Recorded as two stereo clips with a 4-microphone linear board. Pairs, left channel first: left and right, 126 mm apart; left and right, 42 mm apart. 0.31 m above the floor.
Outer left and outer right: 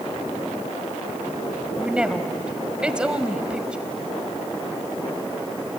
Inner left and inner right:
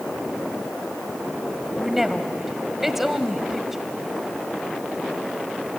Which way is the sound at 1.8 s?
10° right (ahead or behind).